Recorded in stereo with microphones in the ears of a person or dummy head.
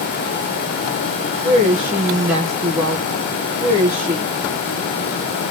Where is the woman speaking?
15° right (ahead or behind), 1.0 m.